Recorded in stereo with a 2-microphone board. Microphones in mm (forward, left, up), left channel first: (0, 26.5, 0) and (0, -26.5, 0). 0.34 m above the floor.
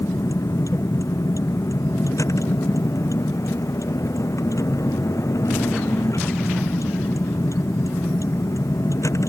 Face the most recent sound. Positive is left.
turn(degrees=75)  # may be behind; listen again after turning